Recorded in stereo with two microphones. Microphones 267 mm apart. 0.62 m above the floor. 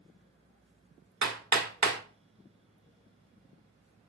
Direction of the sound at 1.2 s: 75° right (ahead or behind).